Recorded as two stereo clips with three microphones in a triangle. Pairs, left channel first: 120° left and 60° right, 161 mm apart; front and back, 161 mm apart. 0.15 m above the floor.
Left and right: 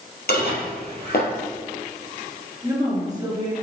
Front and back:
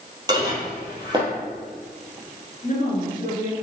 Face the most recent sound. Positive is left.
turn(degrees=0)